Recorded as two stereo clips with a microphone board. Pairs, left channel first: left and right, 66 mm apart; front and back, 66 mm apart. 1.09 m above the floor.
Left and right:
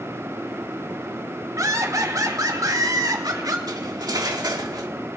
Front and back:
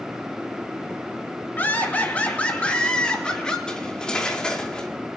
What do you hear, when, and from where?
1.6 s laughter: 60° right, 1.9 m; by 3.6 s 75° right, 2.5 m
3.7 s cutlery clinking: 75° right, 1.5 m